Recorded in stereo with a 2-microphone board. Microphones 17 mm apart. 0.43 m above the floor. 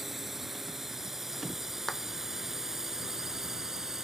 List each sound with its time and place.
0.0 s a drone: 10° right (ahead or behind); by 4.0 s 25° right (ahead or behind)
1.9 s a clap: 25° left (ahead or behind)